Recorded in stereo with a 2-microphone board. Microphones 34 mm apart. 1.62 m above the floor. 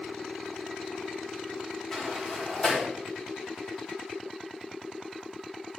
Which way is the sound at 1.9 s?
10° left (ahead or behind).